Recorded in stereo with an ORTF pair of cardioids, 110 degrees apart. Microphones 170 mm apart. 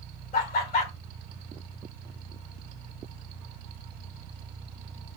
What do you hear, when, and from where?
0.3 s laughter: 60° left, 1.6 m